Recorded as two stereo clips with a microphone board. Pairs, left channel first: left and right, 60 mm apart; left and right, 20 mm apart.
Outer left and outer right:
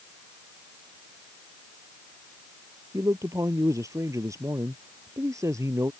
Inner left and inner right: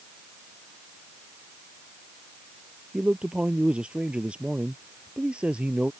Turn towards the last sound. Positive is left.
turn(degrees=-65)  # may be behind; listen again after turning